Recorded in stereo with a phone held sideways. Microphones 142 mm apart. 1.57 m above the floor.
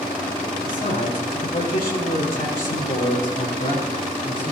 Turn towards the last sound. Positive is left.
turn(degrees=60)  # may be behind; listen again after turning